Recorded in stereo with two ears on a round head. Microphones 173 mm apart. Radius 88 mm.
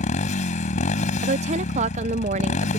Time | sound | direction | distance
0.0 | a motorcycle | 40° left (ahead or behind) | ?
1.2 | a woman speaking | 35° right (ahead or behind) | ?